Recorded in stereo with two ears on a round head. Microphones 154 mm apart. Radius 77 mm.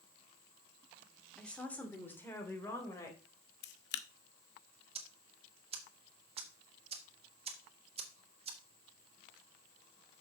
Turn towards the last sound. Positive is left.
turn(degrees=-35)  # may be behind; listen again after turning